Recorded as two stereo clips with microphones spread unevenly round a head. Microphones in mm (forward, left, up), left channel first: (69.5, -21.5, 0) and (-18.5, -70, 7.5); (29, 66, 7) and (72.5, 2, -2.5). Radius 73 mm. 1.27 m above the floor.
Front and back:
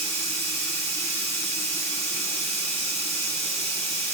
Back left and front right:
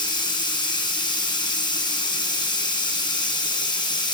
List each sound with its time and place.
0.0 s running water: 105° left, 1.3 m